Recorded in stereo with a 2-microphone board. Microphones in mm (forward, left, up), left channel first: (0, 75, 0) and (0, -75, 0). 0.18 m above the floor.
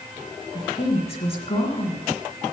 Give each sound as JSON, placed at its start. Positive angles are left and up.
{"t": 0.5, "sound": "a woman speaking", "side_deg": 40, "distance_m": 2.0}